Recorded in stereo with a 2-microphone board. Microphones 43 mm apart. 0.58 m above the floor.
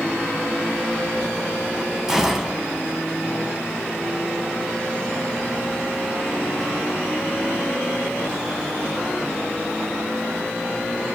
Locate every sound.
2.1 s a gunshot: 10° right (ahead or behind), 1.0 m